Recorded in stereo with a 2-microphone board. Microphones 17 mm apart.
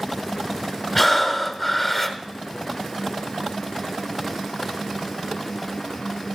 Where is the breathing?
5° right (ahead or behind), 1.3 m.